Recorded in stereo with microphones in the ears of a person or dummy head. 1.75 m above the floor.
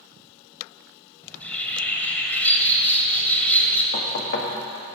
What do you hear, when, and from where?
1.2 s a bird: 15° left (ahead or behind), 1.8 m
3.9 s knocking: 55° left (ahead or behind), 1.6 m